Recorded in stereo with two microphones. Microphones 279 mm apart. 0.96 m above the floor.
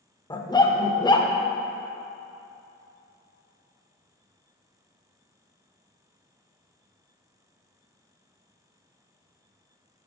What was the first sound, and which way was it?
A dog barking, 15° left (ahead or behind).